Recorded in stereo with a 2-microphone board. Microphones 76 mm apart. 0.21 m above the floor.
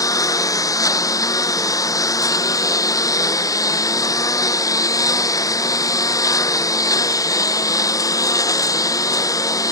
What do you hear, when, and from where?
0.0 s a lawn mower: 55° left (ahead or behind)